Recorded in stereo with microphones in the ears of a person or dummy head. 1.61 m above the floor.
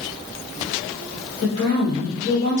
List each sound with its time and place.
1.4 s a woman speaking: 40° left (ahead or behind), 1.5 m